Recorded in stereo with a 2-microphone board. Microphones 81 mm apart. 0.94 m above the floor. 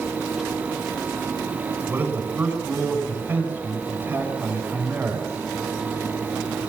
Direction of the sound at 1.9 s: 20° right (ahead or behind).